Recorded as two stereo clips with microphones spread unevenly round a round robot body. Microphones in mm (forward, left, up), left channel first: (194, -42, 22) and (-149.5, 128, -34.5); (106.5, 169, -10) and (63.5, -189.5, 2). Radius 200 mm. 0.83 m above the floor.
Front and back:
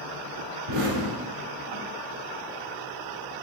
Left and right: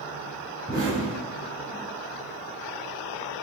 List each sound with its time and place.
0.7 s an explosion: 175° right, 3 m